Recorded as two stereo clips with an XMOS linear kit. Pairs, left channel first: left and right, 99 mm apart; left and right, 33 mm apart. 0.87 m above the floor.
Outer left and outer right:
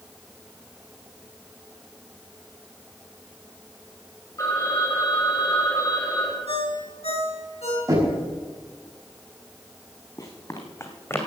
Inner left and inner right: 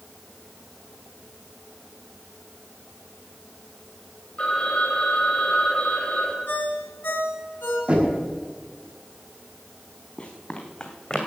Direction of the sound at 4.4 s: 35° left (ahead or behind).